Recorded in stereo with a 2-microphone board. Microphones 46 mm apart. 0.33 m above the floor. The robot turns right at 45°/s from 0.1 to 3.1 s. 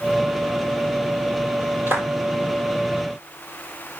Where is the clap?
60° right (ahead or behind), 7 m; by 2.1 s 70° right (ahead or behind), 7 m.